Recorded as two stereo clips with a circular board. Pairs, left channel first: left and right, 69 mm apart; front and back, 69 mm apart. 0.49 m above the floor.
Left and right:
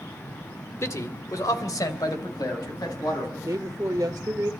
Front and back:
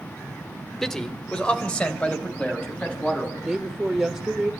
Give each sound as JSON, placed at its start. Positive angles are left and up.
{"t": 0.8, "sound": "a man speaking", "azimuth_deg": 80, "distance_m": 1.7}
{"t": 3.4, "sound": "a woman speaking", "azimuth_deg": -100, "distance_m": 1.4}